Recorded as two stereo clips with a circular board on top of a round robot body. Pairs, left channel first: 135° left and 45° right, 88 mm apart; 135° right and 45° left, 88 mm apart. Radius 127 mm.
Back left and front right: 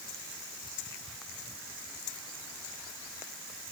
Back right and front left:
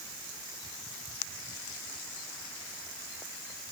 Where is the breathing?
I don't hear breathing.